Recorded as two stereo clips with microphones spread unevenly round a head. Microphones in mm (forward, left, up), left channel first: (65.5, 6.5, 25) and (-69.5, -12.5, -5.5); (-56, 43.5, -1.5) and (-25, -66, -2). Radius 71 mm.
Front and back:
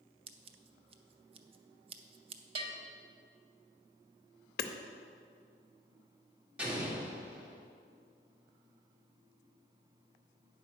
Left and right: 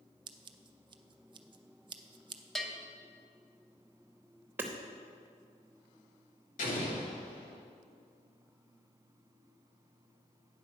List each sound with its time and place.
0.3 s scissors: 120° right, 0.6 m
2.5 s a bell: 175° right, 0.9 m
4.6 s hammering: straight ahead, 0.7 m
6.6 s an explosion: 105° left, 1.9 m